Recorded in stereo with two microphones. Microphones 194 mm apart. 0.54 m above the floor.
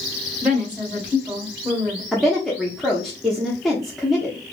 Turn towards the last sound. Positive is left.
turn(degrees=0)  # may be behind; listen again after turning